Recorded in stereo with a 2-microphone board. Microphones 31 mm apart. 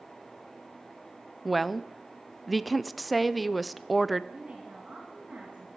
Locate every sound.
1.4 s a woman speaking: 5° right (ahead or behind), 0.5 m
4.3 s a woman speaking: 40° right (ahead or behind), 2 m